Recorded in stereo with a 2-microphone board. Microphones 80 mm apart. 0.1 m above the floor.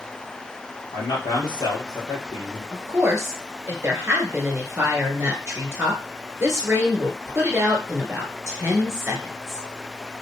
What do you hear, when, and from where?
0.9 s a man speaking: 60° left (ahead or behind), 3 m
2.7 s a woman speaking: 30° right (ahead or behind), 1.8 m